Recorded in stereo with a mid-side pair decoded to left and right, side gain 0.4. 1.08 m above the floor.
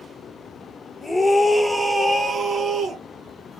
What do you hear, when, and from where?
1.0 s a scream: 25° left, 0.8 m; by 3.0 s 60° right, 0.9 m